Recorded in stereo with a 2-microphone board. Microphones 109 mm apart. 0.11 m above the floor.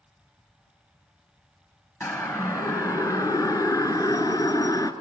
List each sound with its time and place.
2.0 s a siren: 25° left (ahead or behind), 2.5 m; by 4.9 s 35° left (ahead or behind), 1.9 m